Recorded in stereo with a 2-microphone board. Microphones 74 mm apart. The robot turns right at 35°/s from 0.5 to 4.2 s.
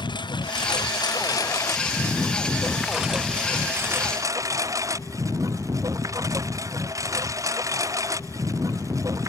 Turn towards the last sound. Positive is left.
turn(degrees=-135)